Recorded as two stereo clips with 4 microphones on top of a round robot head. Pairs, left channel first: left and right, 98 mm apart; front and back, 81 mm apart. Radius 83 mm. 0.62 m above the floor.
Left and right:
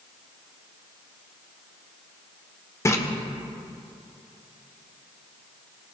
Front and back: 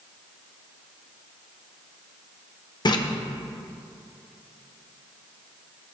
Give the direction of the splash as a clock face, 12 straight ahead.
11 o'clock.